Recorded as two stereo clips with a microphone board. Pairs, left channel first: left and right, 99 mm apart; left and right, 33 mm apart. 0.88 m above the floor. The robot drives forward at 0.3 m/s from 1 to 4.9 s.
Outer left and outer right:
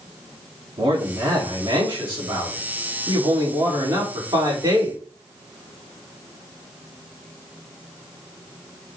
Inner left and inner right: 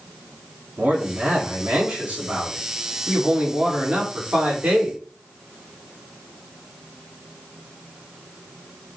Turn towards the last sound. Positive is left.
turn(degrees=-40)  # may be behind; listen again after turning